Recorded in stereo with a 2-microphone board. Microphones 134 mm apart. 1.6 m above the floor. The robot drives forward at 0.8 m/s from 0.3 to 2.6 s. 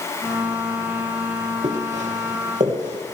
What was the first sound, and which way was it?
Footsteps, 55° right (ahead or behind).